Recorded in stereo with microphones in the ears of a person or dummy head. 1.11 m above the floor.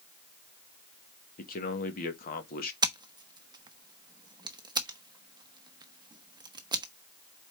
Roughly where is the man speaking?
Left.